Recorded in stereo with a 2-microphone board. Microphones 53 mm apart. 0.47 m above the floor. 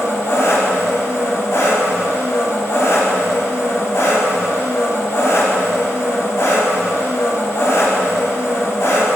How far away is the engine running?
About 0.8 m.